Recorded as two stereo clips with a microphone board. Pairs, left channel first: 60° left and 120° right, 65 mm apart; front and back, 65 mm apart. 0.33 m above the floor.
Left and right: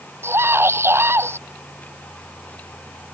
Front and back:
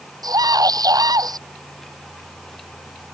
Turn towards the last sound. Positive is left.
turn(degrees=-170)